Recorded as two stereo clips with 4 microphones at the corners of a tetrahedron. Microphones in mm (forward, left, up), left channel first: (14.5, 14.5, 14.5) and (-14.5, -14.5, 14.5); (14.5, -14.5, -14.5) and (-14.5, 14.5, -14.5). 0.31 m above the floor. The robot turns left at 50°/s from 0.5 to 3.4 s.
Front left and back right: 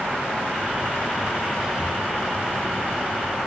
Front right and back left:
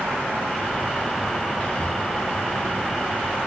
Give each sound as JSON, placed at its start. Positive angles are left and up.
{"t": 1.6, "sound": "whispering", "azimuth_deg": -55, "distance_m": 1.0}